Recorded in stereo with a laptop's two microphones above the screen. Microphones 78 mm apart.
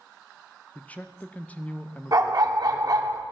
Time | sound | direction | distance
0.8 | a man speaking | 20° left (ahead or behind) | 0.7 m
2.1 | a dog barking | 50° right (ahead or behind) | 0.9 m